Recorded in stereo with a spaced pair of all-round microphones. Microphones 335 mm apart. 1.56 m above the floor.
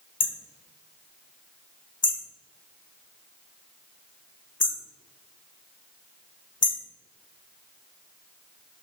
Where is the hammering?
45° left (ahead or behind), 0.8 m.